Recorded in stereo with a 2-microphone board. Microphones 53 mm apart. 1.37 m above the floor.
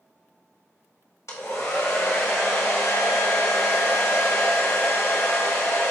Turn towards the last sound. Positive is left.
turn(degrees=65)  # may be behind; listen again after turning